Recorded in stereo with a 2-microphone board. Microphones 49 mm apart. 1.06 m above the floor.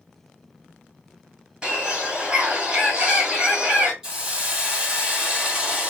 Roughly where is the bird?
Right.